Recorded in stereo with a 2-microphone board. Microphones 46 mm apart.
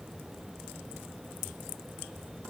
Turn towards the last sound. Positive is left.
No sound to turn to.